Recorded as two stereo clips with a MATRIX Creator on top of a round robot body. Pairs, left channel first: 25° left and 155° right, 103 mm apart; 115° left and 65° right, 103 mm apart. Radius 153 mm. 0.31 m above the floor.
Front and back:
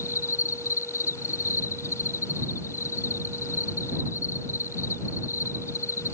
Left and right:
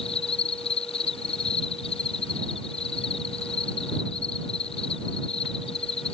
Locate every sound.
0.0 s an insect: 85° left